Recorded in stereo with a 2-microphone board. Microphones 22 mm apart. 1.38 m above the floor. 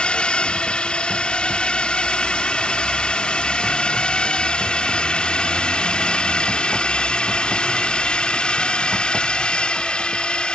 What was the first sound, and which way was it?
A drone, 55° left (ahead or behind).